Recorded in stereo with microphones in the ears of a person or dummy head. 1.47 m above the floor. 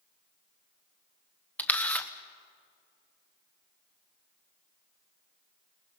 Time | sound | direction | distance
1.6 | a camera shutter | 5° left (ahead or behind) | 1.0 m